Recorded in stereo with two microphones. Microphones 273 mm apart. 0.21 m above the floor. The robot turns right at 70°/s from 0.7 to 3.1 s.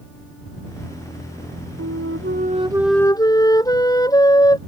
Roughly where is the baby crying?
I don't hear a baby crying.